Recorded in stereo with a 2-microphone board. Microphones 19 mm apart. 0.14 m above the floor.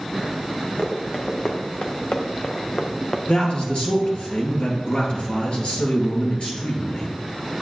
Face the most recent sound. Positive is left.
turn(degrees=60)  # may be behind; listen again after turning